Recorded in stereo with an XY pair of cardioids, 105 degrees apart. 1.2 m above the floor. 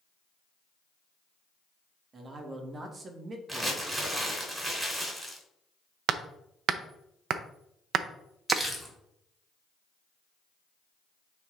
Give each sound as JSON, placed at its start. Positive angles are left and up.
{"t": 2.1, "sound": "a man speaking", "azimuth_deg": -40, "distance_m": 1.9}
{"t": 3.5, "sound": "crumpling", "azimuth_deg": -10, "distance_m": 3.0}
{"t": 6.1, "sound": "hammering", "azimuth_deg": -65, "distance_m": 0.6}
{"t": 8.5, "sound": "crumpling", "azimuth_deg": -5, "distance_m": 2.5}